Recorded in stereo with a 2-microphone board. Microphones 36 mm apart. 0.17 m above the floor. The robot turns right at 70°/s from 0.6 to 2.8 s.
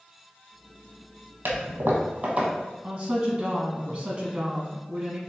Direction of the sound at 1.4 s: 80° right.